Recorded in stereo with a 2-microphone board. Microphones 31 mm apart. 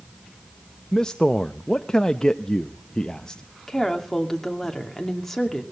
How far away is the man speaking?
About 0.6 m.